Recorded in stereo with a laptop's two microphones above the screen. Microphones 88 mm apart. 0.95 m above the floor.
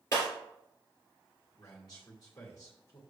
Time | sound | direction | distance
0.1 | breaking glass | 30° left (ahead or behind) | 2.5 m
1.6 | a man speaking | 40° left (ahead or behind) | 2 m